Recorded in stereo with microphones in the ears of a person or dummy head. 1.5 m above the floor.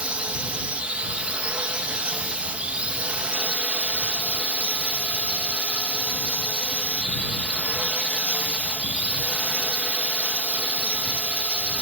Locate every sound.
0.0 s a drone: 10° right (ahead or behind)